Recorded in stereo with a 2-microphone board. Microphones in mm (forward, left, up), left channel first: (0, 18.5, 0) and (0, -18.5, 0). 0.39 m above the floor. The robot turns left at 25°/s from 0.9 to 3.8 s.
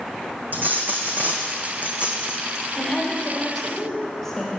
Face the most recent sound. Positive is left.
turn(degrees=10)  # may be behind; listen again after turning